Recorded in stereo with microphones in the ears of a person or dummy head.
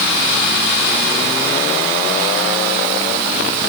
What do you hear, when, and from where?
Only background noise.